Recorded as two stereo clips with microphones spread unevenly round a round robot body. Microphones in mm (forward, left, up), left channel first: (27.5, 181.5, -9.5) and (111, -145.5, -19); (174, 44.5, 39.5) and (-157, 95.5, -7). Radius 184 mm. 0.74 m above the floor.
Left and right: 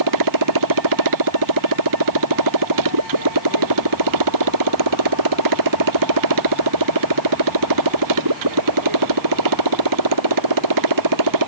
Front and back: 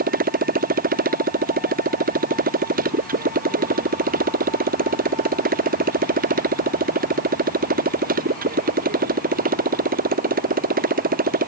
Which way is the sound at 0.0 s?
120° right.